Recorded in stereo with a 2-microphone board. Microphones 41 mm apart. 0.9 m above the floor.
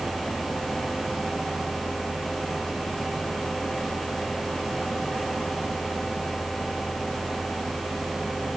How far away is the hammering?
No hammering in this recording.